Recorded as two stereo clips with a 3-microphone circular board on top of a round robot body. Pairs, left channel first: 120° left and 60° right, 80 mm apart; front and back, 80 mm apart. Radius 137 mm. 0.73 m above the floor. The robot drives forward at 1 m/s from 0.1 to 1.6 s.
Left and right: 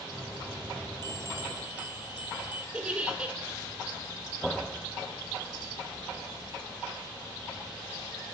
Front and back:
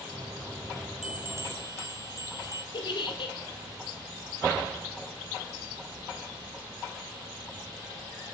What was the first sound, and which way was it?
A bell, 100° right.